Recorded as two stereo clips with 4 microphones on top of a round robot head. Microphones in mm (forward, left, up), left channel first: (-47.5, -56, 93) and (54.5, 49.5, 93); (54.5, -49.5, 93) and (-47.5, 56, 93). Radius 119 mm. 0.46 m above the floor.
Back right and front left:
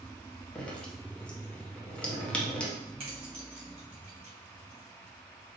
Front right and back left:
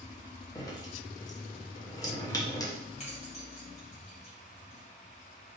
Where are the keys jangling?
5° right, 2 m.